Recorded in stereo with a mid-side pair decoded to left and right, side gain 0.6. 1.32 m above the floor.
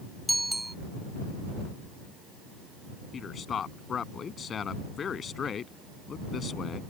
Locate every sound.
0.3 s a bicycle bell: 10° right
3.1 s a man speaking: 40° left